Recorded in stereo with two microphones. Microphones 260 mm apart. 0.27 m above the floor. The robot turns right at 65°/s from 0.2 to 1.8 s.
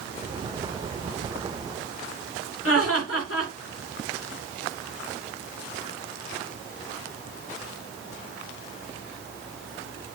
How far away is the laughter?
About 3.5 m.